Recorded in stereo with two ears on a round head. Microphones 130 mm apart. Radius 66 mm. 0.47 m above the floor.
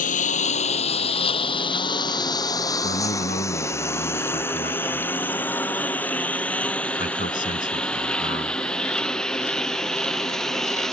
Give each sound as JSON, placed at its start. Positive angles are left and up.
{"t": 0.0, "sound": "a lawn mower", "side_deg": 60}
{"t": 2.8, "sound": "a man speaking", "side_deg": 60}